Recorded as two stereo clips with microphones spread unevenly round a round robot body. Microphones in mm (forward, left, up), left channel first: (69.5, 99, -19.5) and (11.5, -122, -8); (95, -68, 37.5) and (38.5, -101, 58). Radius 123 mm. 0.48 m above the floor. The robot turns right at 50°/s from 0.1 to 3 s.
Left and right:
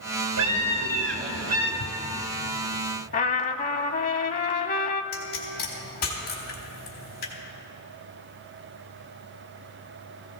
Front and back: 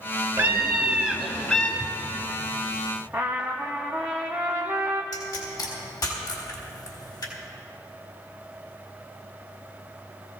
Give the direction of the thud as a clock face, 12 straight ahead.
10 o'clock.